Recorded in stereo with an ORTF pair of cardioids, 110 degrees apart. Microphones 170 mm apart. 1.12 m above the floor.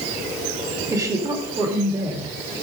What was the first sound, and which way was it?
A woman speaking, 20° right.